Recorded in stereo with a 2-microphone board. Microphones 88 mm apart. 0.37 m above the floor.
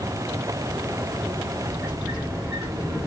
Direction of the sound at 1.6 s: 5° right (ahead or behind).